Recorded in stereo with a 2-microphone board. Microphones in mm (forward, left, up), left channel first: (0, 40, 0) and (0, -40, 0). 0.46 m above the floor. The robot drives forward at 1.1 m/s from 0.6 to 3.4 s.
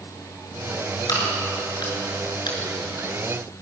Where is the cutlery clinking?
I don't hear cutlery clinking.